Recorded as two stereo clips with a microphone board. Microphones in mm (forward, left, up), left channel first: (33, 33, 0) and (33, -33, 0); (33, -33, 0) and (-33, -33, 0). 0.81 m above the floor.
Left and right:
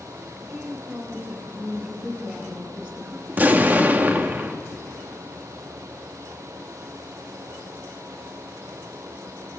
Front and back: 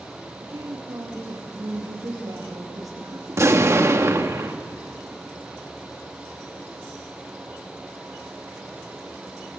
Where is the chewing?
No chewing in this recording.